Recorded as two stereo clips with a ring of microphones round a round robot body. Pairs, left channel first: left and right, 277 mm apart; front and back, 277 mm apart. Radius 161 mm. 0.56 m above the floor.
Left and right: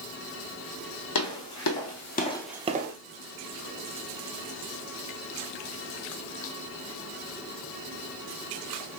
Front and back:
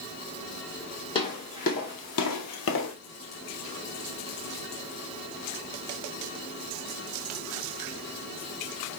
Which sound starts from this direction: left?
Footsteps, at 1.1 s.